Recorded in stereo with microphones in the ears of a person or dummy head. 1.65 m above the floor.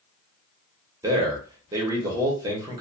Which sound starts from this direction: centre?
A man speaking, at 1.0 s.